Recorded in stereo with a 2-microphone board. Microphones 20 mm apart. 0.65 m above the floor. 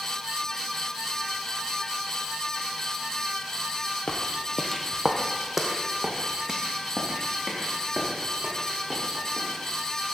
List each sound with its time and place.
4.1 s footsteps: 50° left (ahead or behind), 1.1 m; by 10.1 s 45° right (ahead or behind), 6 m